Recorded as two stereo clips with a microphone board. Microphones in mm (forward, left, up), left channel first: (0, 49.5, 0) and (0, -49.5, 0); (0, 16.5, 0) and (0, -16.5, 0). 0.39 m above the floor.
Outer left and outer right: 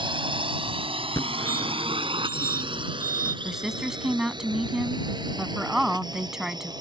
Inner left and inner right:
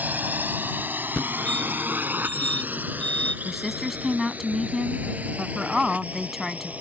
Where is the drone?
55° right (ahead or behind); by 6.8 s 45° right (ahead or behind).